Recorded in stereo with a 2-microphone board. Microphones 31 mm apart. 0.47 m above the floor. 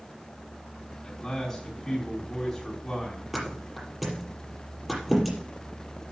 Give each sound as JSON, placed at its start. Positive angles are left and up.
{"t": 1.0, "sound": "a man speaking", "side_deg": 15, "distance_m": 4.0}
{"t": 3.3, "sound": "a thud", "side_deg": 0, "distance_m": 5.0}